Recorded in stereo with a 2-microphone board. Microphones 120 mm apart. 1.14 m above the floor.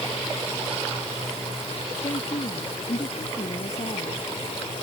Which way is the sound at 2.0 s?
65° left (ahead or behind).